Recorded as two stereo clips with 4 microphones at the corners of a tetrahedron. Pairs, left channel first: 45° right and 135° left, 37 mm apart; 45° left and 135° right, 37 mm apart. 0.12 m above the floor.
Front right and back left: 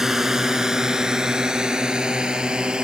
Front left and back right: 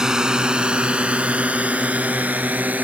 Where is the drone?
170° right; by 2.9 s 160° right.